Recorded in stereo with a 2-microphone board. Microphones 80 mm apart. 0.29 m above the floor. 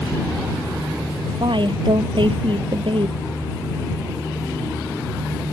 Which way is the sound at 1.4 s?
70° right (ahead or behind).